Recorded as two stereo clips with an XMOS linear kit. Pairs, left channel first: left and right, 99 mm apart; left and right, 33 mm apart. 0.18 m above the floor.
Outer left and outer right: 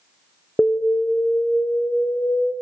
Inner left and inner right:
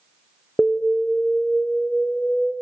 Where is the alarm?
15° left (ahead or behind), 1.8 m.